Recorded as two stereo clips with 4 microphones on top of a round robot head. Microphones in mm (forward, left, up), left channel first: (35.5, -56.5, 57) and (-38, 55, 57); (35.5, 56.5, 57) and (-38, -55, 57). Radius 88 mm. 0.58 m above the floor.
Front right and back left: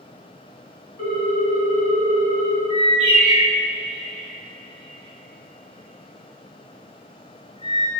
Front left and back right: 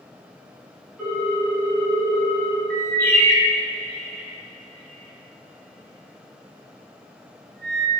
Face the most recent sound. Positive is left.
turn(degrees=-105)